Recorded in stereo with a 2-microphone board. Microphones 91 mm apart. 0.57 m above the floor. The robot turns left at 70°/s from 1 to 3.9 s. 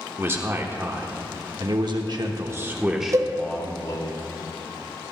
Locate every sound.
0.2 s a man speaking: 30° right, 1.2 m; by 4.1 s 125° left, 1.2 m
3.1 s a cowbell: 40° right (ahead or behind), 0.8 m; by 3.3 s 50° right (ahead or behind), 0.8 m